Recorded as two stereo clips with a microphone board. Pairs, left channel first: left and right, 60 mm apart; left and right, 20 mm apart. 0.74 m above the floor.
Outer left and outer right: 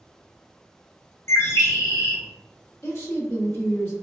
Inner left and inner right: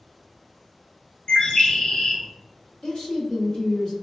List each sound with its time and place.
1.3 s a bird: 50° left (ahead or behind), 0.6 m
2.8 s a woman speaking: 45° left (ahead or behind), 1.5 m